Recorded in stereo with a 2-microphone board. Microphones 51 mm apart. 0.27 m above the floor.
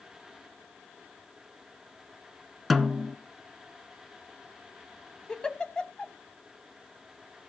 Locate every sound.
2.7 s a snare drum: centre (ahead or behind), 0.7 m
5.3 s a giggle: 20° left (ahead or behind), 0.8 m